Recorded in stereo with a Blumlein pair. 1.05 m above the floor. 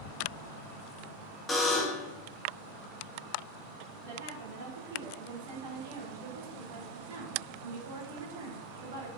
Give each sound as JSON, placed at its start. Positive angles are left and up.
{"t": 1.5, "sound": "a buzzer", "azimuth_deg": 10, "distance_m": 1.4}
{"t": 4.0, "sound": "a woman speaking", "azimuth_deg": -60, "distance_m": 2.5}